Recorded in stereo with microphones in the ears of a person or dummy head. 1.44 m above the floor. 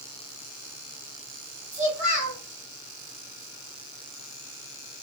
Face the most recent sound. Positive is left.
turn(degrees=-10)  # may be behind; listen again after turning